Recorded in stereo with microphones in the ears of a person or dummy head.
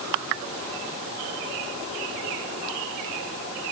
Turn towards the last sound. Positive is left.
No sound to turn to.